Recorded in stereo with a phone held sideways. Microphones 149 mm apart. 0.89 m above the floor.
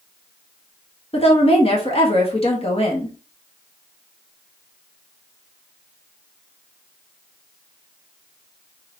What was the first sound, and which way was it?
A woman speaking, 40° left (ahead or behind).